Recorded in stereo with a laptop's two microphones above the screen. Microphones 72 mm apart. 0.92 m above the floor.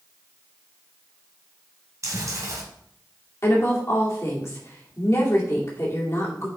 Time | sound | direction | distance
2.0 | chewing | 45° right (ahead or behind) | 1.9 m
3.4 | a woman speaking | 40° left (ahead or behind) | 2 m